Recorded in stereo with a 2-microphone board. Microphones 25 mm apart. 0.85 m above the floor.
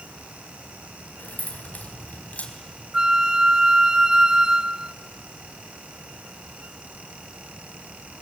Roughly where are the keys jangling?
Left.